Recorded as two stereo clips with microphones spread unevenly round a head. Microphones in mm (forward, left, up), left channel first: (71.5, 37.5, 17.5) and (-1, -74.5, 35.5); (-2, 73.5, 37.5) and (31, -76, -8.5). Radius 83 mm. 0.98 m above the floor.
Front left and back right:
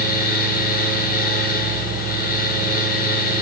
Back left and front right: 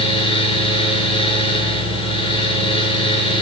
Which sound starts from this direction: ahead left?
A fan, at 0.0 s.